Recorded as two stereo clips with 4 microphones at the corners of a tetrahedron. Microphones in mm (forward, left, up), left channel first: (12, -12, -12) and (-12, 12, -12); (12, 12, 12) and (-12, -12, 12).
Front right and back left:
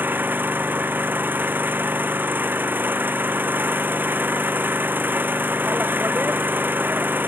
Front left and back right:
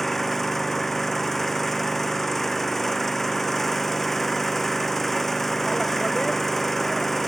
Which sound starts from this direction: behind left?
An engine running, at 0.0 s.